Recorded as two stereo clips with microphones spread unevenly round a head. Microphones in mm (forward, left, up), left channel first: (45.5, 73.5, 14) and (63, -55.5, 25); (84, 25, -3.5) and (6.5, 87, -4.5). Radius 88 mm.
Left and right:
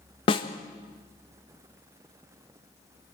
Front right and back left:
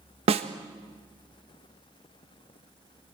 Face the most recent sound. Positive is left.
turn(degrees=145)